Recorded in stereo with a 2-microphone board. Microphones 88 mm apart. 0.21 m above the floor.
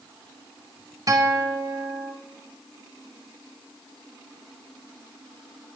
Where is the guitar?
40° right (ahead or behind), 1.9 m.